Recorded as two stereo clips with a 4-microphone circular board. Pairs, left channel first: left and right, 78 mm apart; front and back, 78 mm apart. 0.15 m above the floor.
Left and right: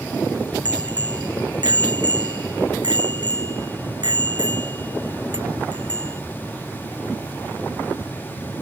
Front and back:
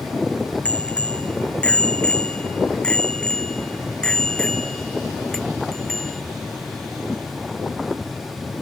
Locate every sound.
0.7 s a bicycle bell: 75° right; by 6.2 s 85° right